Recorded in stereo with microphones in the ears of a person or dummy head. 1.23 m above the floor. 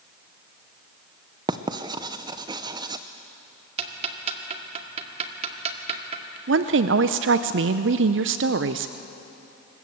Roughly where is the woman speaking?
Right.